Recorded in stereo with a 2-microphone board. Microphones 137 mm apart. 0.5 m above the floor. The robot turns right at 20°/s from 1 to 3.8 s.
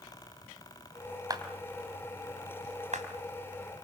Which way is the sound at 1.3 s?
25° right (ahead or behind).